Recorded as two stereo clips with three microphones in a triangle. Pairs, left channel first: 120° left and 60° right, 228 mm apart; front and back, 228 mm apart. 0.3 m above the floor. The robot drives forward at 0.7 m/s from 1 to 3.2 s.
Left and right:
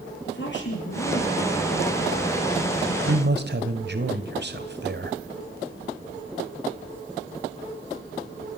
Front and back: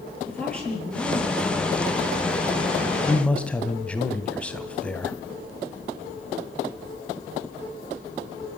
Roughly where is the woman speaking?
Left.